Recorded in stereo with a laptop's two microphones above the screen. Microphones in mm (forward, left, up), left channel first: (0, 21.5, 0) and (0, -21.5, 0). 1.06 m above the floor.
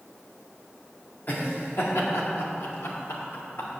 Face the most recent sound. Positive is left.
turn(degrees=65)  # may be behind; listen again after turning